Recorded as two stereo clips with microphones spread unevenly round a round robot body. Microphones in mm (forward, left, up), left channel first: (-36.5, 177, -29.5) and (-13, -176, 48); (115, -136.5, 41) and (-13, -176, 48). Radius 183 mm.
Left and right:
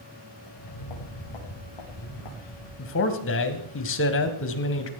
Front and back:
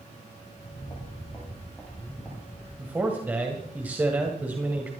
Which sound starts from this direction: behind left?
A man speaking, at 2.8 s.